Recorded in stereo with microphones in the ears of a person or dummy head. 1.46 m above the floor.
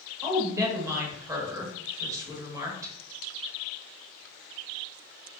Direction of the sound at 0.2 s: 15° right (ahead or behind).